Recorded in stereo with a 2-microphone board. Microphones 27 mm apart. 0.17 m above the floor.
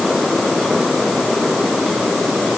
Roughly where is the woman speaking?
No woman speaking in this recording.